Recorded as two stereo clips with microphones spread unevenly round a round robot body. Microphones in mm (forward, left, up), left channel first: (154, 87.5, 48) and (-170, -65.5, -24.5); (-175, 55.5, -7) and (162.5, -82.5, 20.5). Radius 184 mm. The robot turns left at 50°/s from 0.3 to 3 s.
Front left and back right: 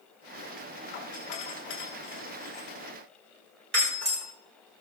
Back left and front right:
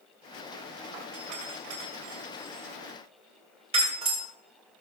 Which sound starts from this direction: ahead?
A doorbell, at 0.9 s.